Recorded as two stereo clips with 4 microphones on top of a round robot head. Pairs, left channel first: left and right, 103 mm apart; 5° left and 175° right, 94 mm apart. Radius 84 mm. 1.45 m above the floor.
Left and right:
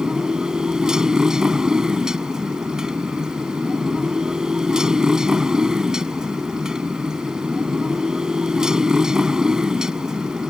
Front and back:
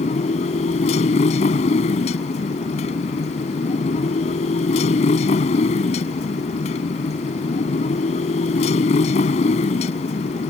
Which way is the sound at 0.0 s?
5° right.